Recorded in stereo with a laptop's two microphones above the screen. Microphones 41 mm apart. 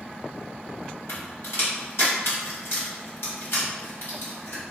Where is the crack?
80° left, 1.6 m.